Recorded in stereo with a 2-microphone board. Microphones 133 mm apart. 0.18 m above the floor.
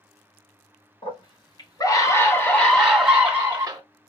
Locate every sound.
1.0 s a scream: 45° left (ahead or behind), 1.9 m; by 3.8 s 25° right (ahead or behind), 1.5 m